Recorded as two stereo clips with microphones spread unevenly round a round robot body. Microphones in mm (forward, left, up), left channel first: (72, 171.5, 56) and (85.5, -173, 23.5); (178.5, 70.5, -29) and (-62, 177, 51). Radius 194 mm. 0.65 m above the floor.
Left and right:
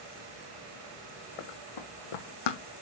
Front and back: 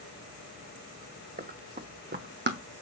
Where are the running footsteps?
105° left, 3 m; by 2.6 s 120° left, 1.6 m.